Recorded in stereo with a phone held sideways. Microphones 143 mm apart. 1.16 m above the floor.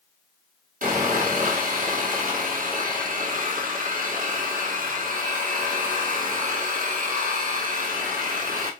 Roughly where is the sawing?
Right.